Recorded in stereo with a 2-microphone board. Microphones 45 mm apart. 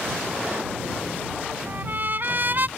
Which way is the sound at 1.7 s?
45° right (ahead or behind).